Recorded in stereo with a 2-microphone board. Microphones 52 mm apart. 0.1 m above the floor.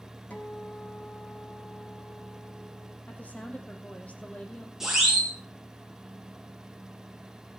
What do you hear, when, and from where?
0.3 s a guitar: 30° left (ahead or behind), 2.5 m
3.1 s a woman speaking: 30° left (ahead or behind), 3.5 m
4.8 s a siren: 10° right (ahead or behind), 7.5 m